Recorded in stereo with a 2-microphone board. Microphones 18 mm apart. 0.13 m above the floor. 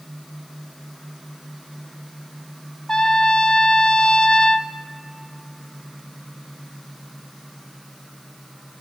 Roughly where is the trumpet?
Left.